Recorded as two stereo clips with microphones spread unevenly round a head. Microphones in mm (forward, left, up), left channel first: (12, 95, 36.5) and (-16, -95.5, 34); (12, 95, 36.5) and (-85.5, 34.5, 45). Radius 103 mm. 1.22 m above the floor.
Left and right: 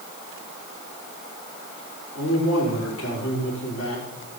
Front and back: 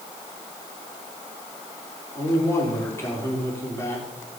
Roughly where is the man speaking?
Left.